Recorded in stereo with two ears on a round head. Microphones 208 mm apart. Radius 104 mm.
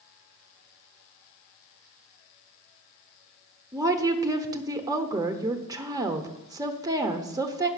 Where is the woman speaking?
15° right (ahead or behind), 0.9 m.